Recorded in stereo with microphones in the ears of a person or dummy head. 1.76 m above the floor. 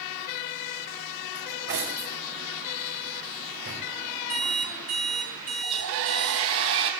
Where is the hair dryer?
70° right (ahead or behind), 4 m.